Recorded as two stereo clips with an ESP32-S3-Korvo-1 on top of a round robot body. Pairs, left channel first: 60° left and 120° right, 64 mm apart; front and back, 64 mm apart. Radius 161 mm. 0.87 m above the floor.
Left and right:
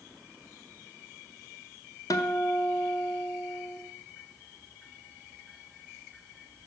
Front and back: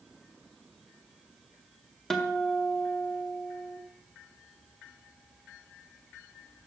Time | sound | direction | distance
2.1 | a guitar | 85° left | 0.9 m